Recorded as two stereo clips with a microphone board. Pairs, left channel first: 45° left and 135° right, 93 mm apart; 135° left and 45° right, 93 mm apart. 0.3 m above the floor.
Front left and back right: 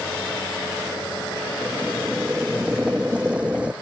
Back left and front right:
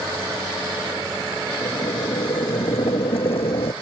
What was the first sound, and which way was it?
Boiling, 150° left.